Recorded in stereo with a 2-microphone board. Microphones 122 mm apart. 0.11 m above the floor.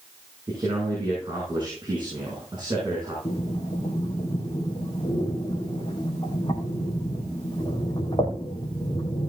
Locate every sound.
0.5 s a man speaking: 35° right (ahead or behind), 7 m
3.2 s breathing: 40° left (ahead or behind), 3.5 m